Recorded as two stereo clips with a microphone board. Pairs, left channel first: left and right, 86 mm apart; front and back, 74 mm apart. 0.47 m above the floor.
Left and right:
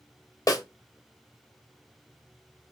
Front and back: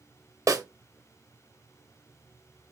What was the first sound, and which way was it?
A snare drum, 140° left.